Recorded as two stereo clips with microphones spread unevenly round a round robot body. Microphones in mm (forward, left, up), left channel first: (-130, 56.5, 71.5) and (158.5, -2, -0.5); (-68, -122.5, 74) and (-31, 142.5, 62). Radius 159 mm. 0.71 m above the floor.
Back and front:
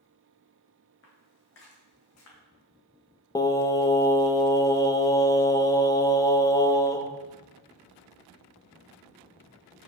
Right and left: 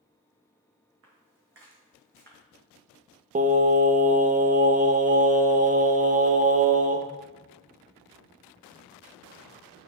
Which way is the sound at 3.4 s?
75° left.